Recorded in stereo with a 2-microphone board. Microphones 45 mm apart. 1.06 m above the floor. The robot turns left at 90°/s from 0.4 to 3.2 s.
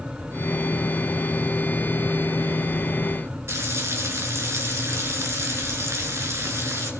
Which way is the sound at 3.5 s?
70° right (ahead or behind).